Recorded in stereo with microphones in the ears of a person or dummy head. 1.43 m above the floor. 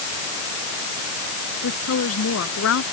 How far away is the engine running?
No engine running in this recording.